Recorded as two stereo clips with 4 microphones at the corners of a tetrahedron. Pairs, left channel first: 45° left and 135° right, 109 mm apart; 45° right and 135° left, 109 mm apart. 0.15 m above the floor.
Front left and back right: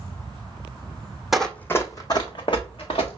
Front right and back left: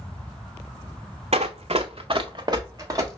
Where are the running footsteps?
135° left, 0.6 m; by 3.2 s 75° left, 1.4 m.